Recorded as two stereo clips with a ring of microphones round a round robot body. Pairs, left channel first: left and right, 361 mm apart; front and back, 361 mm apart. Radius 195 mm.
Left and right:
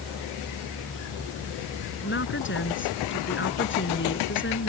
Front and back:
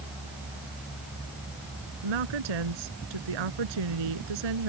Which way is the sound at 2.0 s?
150° left.